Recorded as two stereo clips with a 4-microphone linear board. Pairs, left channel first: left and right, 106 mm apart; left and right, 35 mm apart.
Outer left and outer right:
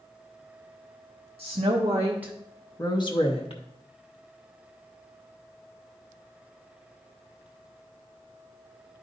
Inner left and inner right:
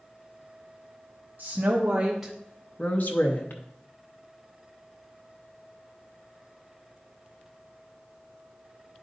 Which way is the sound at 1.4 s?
55° right (ahead or behind).